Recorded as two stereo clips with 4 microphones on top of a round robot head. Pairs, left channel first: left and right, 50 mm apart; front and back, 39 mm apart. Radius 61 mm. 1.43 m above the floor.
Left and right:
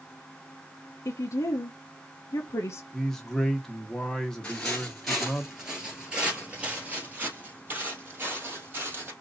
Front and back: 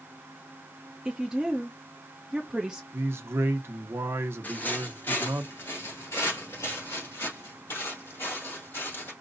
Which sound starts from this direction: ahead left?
Footsteps, at 4.4 s.